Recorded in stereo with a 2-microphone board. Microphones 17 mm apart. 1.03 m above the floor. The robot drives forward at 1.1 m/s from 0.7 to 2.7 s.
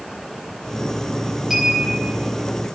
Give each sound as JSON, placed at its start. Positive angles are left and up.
{"t": 1.5, "sound": "a clink", "side_deg": -10, "distance_m": 5.0}